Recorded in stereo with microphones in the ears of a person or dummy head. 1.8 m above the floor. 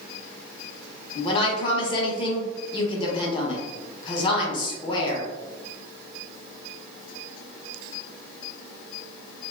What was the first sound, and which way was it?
A woman speaking, 30° left (ahead or behind).